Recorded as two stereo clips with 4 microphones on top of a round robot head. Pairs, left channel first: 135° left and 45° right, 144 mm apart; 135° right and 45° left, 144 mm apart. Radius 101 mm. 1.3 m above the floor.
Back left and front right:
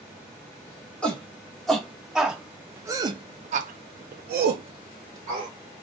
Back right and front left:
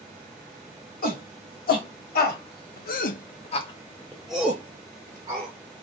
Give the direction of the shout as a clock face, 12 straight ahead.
5 o'clock.